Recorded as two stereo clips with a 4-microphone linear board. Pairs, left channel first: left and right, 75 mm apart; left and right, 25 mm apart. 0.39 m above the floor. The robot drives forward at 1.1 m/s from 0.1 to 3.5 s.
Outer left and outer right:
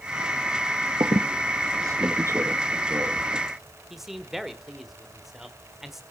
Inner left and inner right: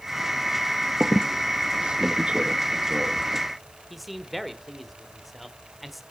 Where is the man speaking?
5° right (ahead or behind), 1.2 m.